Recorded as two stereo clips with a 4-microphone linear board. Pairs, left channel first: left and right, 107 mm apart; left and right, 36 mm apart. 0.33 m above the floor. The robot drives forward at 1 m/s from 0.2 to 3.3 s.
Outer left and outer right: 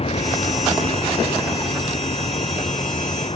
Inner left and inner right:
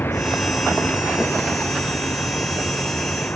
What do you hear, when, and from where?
0.0 s a vehicle: 80° left; by 3.4 s 65° left (ahead or behind)